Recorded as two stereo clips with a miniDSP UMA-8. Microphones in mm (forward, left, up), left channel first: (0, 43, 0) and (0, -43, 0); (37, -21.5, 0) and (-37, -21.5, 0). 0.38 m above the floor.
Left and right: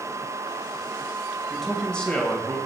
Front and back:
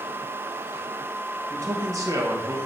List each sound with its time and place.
1.5 s a man speaking: straight behind, 1.5 m; by 2.6 s 155° left, 1.9 m